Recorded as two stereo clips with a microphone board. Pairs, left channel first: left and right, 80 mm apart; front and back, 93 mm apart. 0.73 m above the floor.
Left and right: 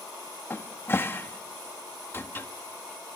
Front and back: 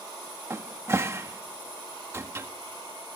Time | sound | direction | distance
0.5 | a cupboard door | 135° left | 1.2 m